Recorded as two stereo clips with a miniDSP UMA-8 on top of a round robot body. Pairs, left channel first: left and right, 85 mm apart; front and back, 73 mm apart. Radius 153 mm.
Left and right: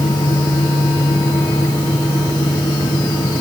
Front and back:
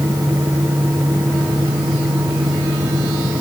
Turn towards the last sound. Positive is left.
No sound to turn to.